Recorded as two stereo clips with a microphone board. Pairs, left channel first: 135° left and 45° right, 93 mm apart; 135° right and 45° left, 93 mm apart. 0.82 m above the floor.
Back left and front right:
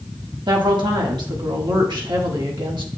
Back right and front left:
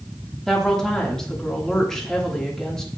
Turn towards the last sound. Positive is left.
turn(degrees=-50)